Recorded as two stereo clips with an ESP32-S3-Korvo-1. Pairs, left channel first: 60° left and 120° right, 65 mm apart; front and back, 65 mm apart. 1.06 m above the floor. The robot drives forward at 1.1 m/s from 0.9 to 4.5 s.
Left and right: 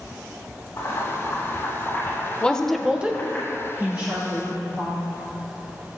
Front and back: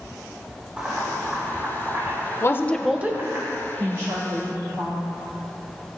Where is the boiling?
110° left, 3.5 m; by 3.4 s 140° left, 5 m.